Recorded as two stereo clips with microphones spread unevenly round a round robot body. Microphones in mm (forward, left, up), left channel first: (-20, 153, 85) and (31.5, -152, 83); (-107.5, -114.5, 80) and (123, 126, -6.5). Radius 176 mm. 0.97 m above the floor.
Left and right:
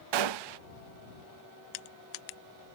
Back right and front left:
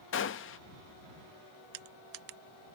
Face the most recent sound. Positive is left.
turn(degrees=100)